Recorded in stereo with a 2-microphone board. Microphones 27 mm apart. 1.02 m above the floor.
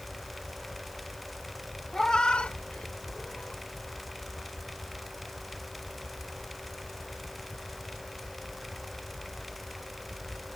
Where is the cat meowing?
20° left (ahead or behind); by 3.6 s 60° left (ahead or behind).